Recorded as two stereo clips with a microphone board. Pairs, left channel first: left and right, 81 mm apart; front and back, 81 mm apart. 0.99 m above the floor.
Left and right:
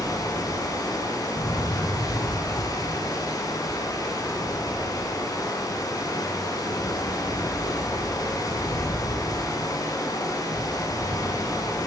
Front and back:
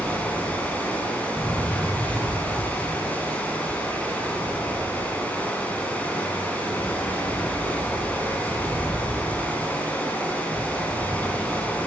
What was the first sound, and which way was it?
Running water, 65° left.